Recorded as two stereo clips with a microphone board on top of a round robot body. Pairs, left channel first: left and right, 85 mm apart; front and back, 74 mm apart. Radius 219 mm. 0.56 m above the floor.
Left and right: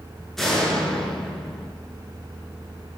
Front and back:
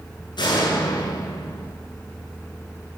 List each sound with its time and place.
0.4 s a door slam: 5° left, 8 m